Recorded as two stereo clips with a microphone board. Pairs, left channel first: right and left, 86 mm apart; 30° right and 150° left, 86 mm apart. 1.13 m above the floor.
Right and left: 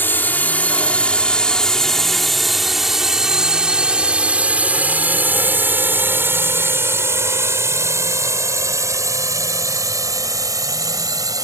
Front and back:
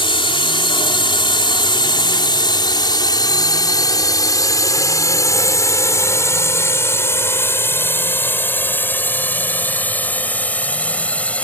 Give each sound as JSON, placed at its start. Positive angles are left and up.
{"t": 0.0, "sound": "a drone", "azimuth_deg": -25}